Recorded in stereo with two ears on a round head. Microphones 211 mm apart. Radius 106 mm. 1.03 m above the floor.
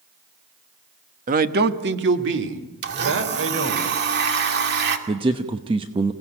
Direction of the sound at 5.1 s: 20° right (ahead or behind).